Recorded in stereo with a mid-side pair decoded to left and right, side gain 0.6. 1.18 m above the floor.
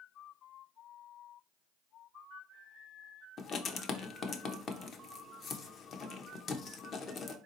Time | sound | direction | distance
3.4 | writing | 45° left | 0.8 m